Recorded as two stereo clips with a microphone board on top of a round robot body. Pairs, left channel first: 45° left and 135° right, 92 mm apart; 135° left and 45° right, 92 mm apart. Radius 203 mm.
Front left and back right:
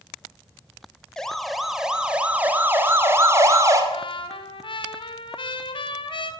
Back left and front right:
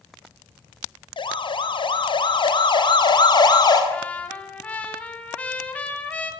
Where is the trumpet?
60° left, 3.5 m.